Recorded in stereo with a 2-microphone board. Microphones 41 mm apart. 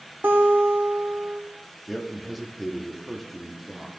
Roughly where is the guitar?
Right.